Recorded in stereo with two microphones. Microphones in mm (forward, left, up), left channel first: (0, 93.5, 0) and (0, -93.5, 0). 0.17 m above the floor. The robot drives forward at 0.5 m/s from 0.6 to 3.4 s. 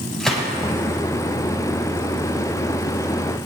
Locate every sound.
0.2 s a gunshot: 5° left (ahead or behind), 7 m